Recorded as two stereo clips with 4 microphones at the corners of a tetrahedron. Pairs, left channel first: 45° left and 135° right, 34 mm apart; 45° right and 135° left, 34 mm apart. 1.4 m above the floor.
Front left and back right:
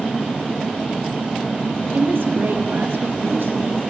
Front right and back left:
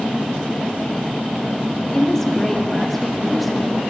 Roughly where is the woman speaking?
Behind right.